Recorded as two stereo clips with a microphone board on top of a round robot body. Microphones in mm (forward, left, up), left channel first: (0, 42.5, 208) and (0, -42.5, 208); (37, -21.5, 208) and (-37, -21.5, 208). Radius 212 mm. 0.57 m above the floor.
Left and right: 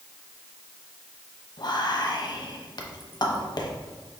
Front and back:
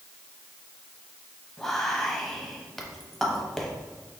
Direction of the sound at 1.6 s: 85° left.